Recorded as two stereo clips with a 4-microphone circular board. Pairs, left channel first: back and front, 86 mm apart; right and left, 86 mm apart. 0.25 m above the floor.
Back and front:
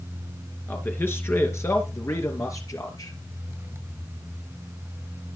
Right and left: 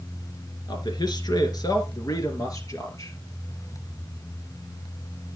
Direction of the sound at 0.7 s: 115° right.